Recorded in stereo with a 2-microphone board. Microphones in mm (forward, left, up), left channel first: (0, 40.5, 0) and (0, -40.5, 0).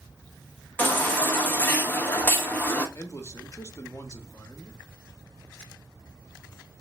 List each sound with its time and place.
0.8 s a baby crying: 25° left (ahead or behind), 1.0 m
3.0 s a man speaking: 35° left (ahead or behind), 0.7 m